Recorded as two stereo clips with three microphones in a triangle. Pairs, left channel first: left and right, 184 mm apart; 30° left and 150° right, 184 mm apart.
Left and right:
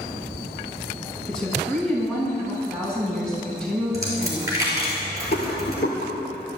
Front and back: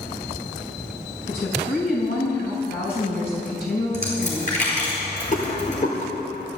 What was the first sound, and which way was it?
A woman speaking, 5° left.